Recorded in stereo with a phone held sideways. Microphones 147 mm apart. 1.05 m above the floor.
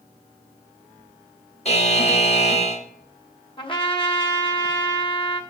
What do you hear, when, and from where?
1.6 s a buzzer: 45° left (ahead or behind), 1.0 m
3.6 s a trumpet: 35° left (ahead or behind), 1.1 m